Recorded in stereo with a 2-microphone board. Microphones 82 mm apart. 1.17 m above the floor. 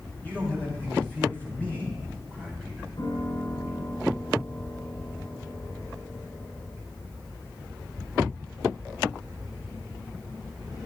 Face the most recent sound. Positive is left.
turn(degrees=70)  # may be behind; listen again after turning